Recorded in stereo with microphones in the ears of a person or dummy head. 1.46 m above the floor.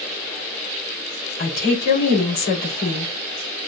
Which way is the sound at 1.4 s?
60° left (ahead or behind).